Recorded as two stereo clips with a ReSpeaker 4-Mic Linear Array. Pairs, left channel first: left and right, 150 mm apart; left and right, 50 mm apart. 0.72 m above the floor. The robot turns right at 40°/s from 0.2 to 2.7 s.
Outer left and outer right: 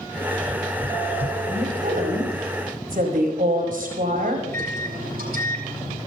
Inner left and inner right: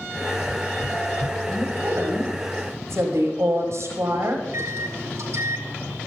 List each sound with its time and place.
1.5 s a woman speaking: 125° right, 5 m; by 4.5 s 75° right, 5 m
4.4 s a microwave: 80° right, 4.5 m